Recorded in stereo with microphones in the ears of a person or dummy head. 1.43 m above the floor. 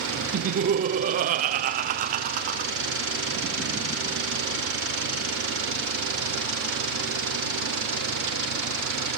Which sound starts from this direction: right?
Laughter, at 0.3 s.